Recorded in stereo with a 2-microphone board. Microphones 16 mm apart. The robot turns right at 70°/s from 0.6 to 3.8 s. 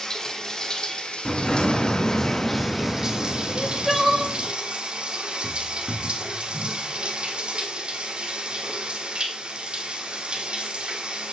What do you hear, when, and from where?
0.0 s running water: 40° left, 1.5 m; by 11.3 s 95° right, 1.5 m
1.2 s an explosion: 15° left, 2.5 m; by 4.5 s 170° right, 2.5 m
3.5 s crying: 15° left (ahead or behind), 1.4 m; by 4.3 s 5° right (ahead or behind), 1.4 m